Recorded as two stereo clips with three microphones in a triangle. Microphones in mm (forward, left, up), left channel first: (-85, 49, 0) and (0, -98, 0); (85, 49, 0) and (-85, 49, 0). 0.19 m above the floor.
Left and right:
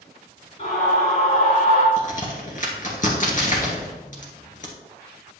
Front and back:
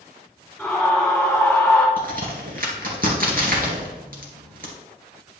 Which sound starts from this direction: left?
A scream, at 0.6 s.